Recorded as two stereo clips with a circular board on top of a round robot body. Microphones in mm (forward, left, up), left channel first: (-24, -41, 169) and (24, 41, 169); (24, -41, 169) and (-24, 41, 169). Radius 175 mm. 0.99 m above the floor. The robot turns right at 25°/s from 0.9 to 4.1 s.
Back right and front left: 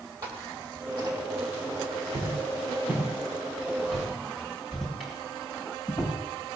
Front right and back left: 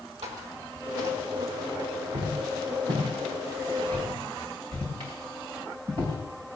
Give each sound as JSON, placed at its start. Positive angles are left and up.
{"t": 0.2, "sound": "footsteps", "azimuth_deg": 110, "distance_m": 2.5}